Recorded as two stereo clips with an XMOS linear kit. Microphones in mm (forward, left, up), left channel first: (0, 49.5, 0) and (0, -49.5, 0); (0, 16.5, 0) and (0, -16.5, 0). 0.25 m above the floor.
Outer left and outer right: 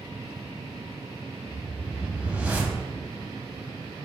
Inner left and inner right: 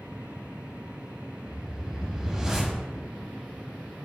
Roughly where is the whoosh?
Centre.